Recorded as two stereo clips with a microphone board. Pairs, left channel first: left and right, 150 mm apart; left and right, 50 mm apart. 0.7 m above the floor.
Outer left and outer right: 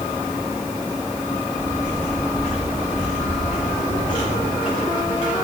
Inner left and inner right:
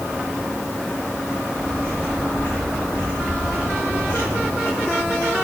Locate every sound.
1.3 s footsteps: 60° left (ahead or behind), 3 m; by 5.3 s 50° left (ahead or behind), 6.5 m